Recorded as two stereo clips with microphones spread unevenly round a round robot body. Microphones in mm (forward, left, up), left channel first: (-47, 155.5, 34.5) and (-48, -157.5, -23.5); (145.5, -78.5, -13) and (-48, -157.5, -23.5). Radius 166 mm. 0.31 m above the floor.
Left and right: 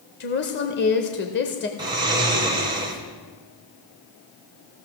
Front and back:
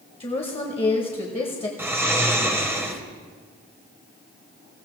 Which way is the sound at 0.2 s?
60° left.